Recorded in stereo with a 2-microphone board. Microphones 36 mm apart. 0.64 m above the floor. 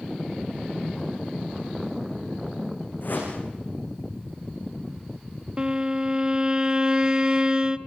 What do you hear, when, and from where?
3.0 s a whoosh: 60° left (ahead or behind), 8.5 m
5.6 s a violin: 25° right (ahead or behind), 0.9 m